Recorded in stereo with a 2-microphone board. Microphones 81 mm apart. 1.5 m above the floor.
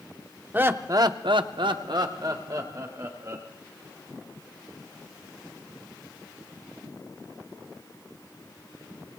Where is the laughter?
25° right (ahead or behind), 1.1 m; by 3.5 s 40° right (ahead or behind), 3 m.